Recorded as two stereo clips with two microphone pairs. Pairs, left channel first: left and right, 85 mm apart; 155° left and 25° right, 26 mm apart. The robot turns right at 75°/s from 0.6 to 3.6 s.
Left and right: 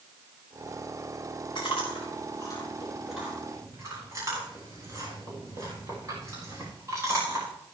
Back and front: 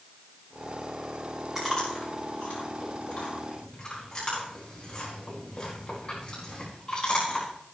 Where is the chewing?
60° left, 10 m; by 7.5 s 145° right, 10 m.